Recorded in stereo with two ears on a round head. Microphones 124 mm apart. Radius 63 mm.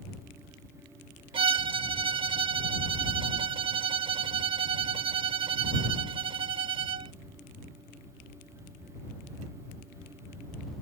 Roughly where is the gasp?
I don't hear a gasp.